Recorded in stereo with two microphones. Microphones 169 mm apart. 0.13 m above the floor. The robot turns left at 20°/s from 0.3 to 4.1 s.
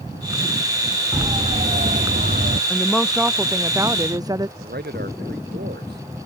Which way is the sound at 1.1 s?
30° right (ahead or behind).